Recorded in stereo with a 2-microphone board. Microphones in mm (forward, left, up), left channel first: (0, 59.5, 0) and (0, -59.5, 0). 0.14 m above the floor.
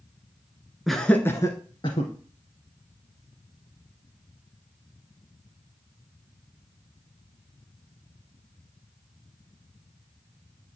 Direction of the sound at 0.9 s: Centre (ahead or behind).